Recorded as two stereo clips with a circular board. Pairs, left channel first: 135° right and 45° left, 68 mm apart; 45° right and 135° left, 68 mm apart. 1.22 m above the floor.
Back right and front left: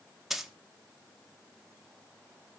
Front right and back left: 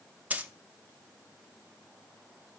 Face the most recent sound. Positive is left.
turn(degrees=125)